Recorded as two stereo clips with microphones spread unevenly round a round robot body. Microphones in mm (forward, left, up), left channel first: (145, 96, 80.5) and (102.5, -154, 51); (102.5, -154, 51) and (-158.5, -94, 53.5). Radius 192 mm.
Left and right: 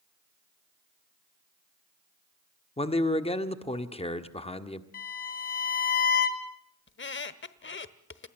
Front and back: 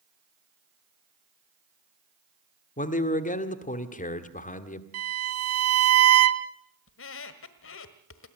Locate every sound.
2.8 s a man speaking: 20° left, 1.6 m
4.9 s a violin: 140° left, 1.1 m
6.9 s a squeak: 35° left, 1.2 m